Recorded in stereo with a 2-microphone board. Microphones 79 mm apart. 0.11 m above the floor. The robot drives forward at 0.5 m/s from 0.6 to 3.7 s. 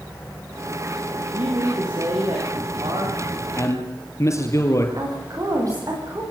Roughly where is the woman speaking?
Right.